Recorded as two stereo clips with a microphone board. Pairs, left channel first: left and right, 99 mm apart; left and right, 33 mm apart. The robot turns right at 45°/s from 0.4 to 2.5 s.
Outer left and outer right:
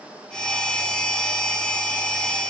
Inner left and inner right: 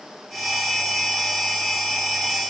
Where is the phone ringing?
I don't hear a phone ringing.